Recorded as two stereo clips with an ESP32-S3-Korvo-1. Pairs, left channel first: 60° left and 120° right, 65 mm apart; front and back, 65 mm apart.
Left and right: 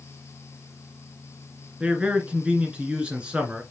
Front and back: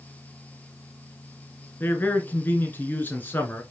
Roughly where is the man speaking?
Ahead right.